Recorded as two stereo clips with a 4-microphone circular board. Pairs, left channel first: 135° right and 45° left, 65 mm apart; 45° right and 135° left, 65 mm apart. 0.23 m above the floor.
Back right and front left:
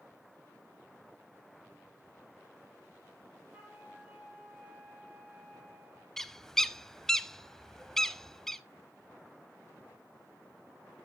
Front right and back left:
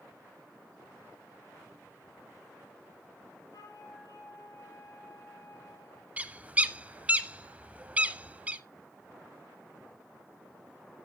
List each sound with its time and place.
3.5 s a flute: 25° right, 4.5 m
6.2 s a bird: 155° left, 0.6 m